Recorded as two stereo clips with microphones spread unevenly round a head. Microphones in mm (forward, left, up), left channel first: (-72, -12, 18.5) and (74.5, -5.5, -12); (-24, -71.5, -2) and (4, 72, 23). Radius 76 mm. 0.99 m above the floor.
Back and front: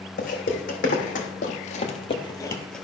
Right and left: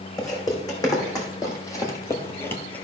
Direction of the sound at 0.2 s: 170° right.